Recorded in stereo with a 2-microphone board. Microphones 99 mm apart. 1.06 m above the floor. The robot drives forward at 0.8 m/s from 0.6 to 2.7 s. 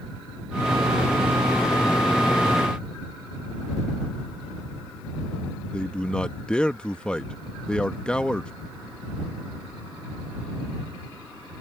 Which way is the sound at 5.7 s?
10° left (ahead or behind).